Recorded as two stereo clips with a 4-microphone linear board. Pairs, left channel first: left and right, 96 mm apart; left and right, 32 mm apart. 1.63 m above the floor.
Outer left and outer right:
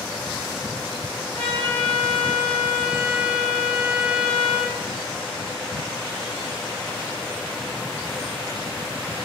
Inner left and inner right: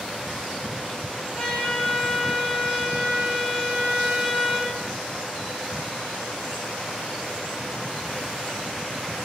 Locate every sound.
1.3 s a trumpet: 20° left (ahead or behind), 3 m